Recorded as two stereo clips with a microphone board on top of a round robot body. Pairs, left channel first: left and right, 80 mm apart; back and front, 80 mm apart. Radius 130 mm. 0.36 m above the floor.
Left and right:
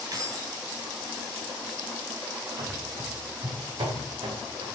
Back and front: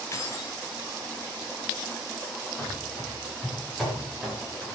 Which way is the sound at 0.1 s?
130° right.